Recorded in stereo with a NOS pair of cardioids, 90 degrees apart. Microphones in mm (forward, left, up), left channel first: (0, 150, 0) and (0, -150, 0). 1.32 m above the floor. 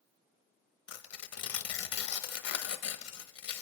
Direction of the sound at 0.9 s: 60° left.